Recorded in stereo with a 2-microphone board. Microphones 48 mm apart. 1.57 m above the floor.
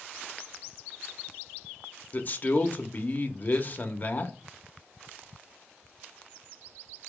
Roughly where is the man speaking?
Left.